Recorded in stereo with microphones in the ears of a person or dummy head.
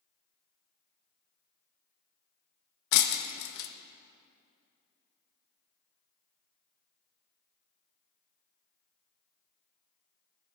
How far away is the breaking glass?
About 0.7 m.